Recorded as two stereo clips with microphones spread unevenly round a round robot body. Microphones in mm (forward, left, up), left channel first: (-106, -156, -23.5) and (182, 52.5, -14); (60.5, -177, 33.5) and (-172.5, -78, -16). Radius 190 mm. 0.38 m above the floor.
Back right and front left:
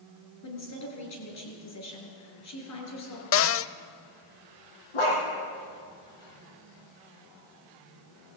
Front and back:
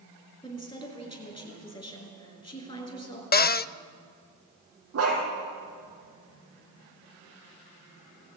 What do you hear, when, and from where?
0.4 s a woman speaking: 100° right, 6 m
3.3 s a cupboard door: 90° right, 0.6 m
4.9 s a dog barking: 170° right, 4.5 m